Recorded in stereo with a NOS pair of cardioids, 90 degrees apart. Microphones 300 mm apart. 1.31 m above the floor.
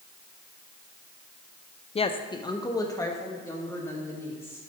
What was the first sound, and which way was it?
A woman speaking, 20° left.